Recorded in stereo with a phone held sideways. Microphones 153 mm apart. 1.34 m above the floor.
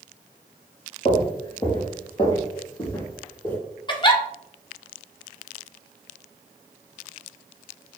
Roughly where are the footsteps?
Left.